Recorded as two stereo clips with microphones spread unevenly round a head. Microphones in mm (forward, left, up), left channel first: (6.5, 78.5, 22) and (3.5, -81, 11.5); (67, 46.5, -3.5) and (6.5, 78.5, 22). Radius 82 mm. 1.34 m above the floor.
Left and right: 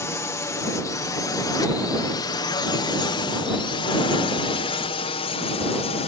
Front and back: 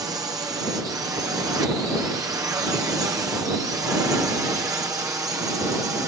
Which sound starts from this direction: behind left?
A drone, at 0.0 s.